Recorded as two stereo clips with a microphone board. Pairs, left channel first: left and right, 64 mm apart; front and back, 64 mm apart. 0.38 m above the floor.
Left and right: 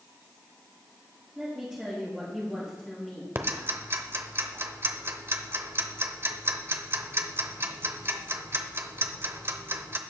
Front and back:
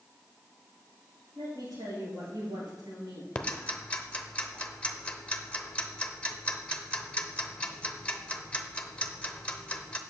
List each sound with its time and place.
1.4 s a woman speaking: 170° right, 5 m; by 3.2 s 170° left, 5 m
3.4 s ticking: 70° right, 0.8 m